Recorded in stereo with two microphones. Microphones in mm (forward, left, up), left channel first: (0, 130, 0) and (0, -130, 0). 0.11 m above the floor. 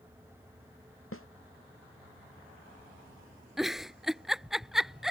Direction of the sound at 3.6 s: Centre (ahead or behind).